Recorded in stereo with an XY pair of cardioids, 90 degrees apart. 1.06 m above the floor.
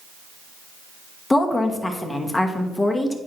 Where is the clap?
I don't hear a clap.